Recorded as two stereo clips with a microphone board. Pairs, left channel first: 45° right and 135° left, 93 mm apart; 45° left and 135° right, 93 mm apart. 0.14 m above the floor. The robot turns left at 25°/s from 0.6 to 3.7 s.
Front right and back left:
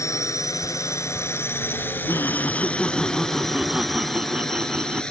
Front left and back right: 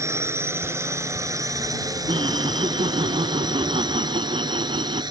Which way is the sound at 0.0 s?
90° right.